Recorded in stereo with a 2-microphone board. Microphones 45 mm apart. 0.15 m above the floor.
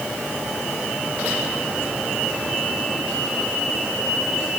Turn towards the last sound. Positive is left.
No sound to turn to.